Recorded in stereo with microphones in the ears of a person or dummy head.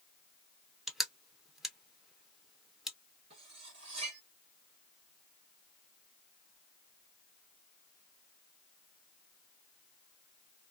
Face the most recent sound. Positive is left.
turn(degrees=-30)  # may be behind; listen again after turning